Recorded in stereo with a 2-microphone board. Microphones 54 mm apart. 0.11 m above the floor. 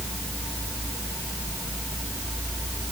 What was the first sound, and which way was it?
Only background noise.